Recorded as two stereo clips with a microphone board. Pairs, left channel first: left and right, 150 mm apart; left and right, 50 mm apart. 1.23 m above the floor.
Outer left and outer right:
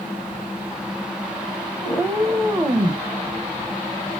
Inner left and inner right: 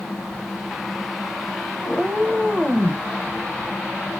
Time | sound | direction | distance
1.8 | a cat meowing | 5° right (ahead or behind) | 1.8 m